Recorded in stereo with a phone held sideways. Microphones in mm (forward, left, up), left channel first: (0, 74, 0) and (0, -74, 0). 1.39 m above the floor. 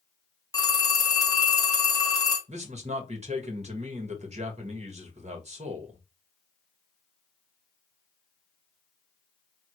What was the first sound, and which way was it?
A phone ringing, 25° left (ahead or behind).